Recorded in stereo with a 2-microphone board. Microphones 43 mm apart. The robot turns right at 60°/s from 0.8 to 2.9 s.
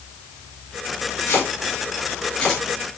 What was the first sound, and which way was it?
Chopping, 85° left.